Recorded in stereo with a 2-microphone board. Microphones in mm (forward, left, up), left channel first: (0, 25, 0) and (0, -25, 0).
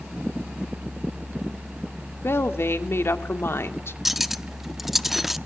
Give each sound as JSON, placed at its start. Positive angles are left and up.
{"t": 2.2, "sound": "a woman speaking", "side_deg": 55, "distance_m": 2.0}
{"t": 4.0, "sound": "cutlery clinking", "side_deg": -5, "distance_m": 0.7}